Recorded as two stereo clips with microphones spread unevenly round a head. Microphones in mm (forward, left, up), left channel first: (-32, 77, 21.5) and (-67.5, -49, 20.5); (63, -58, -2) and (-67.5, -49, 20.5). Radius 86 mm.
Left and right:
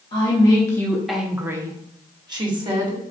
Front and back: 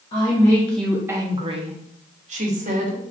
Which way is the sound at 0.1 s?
25° left.